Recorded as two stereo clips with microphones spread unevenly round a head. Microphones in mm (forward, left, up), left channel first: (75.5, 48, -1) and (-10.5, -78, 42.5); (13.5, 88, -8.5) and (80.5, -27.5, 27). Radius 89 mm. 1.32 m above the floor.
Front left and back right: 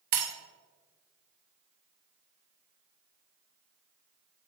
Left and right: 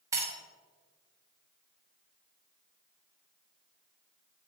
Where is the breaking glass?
125° right, 1.1 m.